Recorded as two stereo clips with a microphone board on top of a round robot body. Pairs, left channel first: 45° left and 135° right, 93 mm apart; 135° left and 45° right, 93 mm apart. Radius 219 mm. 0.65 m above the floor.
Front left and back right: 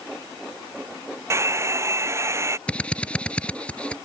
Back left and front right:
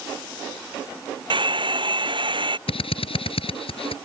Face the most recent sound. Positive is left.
turn(degrees=125)